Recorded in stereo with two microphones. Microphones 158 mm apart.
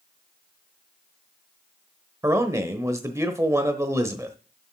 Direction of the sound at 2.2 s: 20° right (ahead or behind).